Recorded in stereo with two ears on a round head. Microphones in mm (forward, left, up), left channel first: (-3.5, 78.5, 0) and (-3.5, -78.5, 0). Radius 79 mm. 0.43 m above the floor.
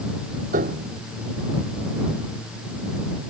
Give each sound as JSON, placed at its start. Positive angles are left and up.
{"t": 0.5, "sound": "a piano", "side_deg": -45}